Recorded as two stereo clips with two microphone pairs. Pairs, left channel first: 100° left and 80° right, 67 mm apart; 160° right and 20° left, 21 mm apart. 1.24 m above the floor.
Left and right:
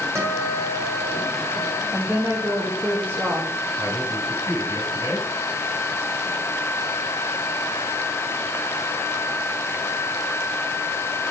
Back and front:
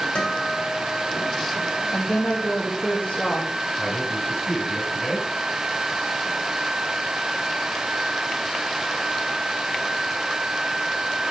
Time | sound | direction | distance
0.1 | a guitar | 125° right | 2.5 m
1.9 | a woman speaking | 145° right | 2.5 m
3.8 | a man speaking | 90° right | 6.5 m